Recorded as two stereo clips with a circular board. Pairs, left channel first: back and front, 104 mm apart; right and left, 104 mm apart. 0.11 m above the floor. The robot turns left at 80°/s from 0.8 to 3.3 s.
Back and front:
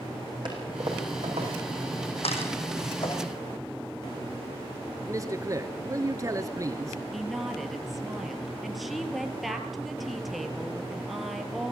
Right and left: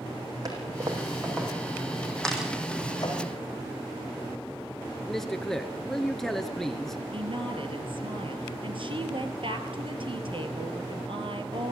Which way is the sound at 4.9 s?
5° right.